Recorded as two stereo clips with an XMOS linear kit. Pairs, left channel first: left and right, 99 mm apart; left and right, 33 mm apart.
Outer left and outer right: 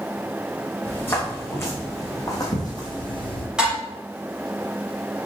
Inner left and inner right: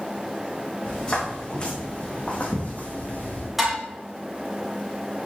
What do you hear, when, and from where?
0.8 s footsteps: 20° left (ahead or behind), 4.5 m; by 3.5 s 55° left (ahead or behind), 2.5 m
3.6 s dishes clattering: 10° right (ahead or behind), 3.5 m